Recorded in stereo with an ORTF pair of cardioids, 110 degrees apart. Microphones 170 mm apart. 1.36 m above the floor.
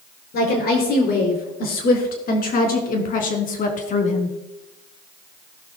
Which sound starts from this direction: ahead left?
A woman speaking, at 0.3 s.